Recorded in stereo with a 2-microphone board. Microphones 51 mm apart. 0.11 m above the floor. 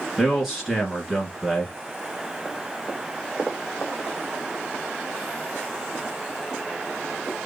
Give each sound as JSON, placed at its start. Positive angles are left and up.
{"t": 0.2, "sound": "a man speaking", "side_deg": -10, "distance_m": 1.7}